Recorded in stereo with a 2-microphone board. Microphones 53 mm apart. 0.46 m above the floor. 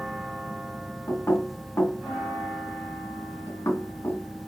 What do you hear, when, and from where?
1.1 s knocking: 60° left (ahead or behind), 3 m